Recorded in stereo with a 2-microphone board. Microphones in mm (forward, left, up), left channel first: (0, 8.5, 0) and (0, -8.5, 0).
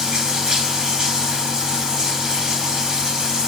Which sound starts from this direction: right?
Running water, at 0.0 s.